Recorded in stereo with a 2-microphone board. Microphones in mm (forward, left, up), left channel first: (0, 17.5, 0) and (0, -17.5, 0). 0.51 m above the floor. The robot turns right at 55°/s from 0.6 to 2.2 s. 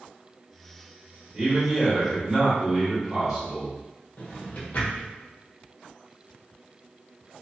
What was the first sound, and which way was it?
A man speaking, 25° right (ahead or behind).